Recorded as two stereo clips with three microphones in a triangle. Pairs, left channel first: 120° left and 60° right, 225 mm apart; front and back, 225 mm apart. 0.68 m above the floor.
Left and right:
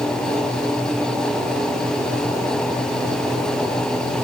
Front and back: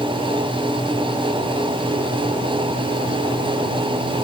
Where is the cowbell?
I don't hear a cowbell.